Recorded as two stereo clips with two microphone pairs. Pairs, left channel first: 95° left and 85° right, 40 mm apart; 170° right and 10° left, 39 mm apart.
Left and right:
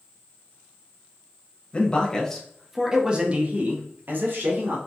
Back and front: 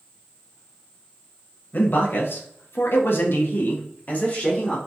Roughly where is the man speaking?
Behind.